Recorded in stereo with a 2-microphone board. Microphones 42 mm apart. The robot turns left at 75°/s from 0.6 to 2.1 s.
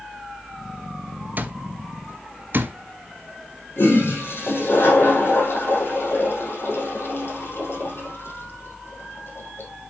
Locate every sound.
1.4 s an alarm clock: 40° right (ahead or behind), 0.9 m; by 2.8 s 50° right (ahead or behind), 0.9 m
3.8 s a toilet flushing: 60° left (ahead or behind), 4 m